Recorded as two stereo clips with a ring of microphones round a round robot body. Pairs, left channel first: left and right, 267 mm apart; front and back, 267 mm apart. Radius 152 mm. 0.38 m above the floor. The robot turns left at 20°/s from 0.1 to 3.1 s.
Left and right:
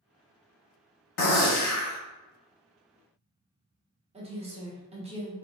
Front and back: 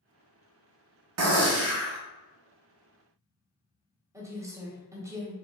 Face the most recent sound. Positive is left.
turn(degrees=-115)